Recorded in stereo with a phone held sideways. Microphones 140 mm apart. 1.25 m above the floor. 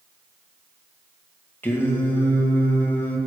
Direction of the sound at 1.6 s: 15° left (ahead or behind).